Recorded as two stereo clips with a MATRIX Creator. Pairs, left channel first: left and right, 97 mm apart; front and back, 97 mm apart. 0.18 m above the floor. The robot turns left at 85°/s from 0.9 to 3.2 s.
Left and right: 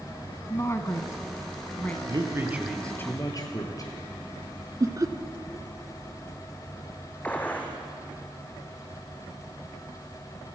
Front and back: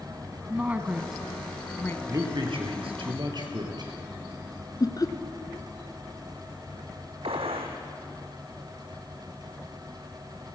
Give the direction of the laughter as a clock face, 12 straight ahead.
1 o'clock.